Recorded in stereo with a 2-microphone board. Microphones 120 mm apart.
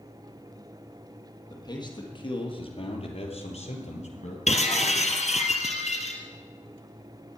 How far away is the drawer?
No drawer in this recording.